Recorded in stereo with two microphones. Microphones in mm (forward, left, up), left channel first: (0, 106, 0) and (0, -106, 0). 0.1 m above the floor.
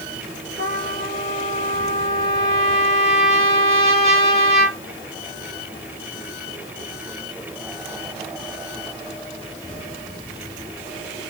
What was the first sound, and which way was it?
A trumpet, 30° right (ahead or behind).